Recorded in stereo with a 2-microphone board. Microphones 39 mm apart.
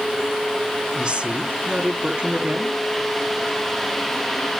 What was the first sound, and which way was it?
A woman speaking, 25° right (ahead or behind).